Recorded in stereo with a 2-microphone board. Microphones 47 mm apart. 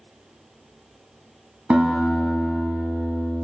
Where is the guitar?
25° right (ahead or behind), 1.2 m.